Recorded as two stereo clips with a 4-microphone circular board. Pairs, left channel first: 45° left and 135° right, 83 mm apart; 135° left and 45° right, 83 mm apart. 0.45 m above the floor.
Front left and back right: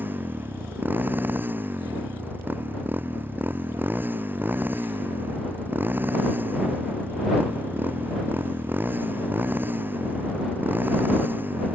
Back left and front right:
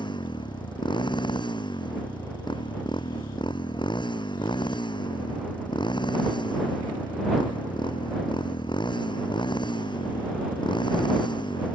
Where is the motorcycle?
155° left.